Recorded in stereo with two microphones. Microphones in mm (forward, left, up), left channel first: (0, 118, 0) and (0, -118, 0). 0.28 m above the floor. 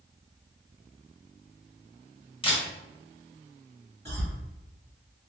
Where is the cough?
25° right (ahead or behind), 1.0 m.